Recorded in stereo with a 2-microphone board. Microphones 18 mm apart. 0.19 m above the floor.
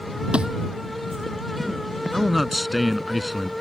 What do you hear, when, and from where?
0.3 s a thud: 60° right (ahead or behind)
2.1 s a man speaking: centre (ahead or behind)